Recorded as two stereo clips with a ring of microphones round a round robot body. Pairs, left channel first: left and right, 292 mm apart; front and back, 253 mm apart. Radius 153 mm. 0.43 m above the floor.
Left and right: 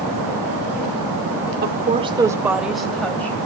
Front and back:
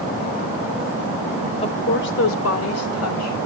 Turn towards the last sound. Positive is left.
turn(degrees=5)